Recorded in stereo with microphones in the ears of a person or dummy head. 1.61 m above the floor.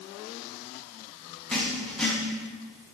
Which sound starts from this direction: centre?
Writing, at 1.5 s.